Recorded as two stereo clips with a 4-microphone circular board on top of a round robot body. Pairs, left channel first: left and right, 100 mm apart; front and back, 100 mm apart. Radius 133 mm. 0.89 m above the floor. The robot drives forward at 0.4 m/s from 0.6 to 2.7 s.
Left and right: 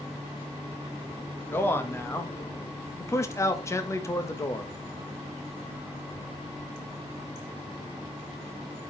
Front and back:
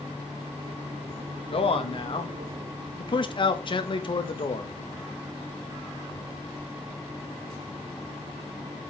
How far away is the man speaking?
About 1.8 m.